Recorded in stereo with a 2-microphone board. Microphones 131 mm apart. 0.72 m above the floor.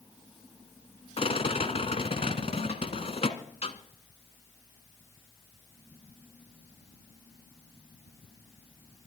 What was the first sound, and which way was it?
A rattle, 50° left (ahead or behind).